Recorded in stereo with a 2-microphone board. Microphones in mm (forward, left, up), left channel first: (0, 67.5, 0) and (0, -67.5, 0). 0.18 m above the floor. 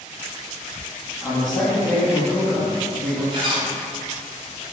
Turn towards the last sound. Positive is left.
turn(degrees=-40)  # may be behind; listen again after turning